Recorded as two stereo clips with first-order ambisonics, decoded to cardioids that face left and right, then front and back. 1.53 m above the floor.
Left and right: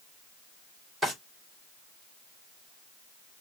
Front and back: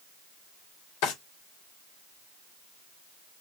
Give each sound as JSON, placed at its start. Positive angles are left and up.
{"t": 1.0, "sound": "a drawer", "azimuth_deg": -10, "distance_m": 2.5}